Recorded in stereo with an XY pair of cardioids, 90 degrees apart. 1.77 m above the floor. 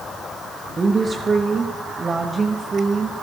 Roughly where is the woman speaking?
Ahead right.